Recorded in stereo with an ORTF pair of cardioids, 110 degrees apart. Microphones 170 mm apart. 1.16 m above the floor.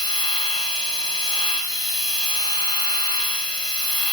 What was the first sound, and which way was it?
A machine running, 25° left.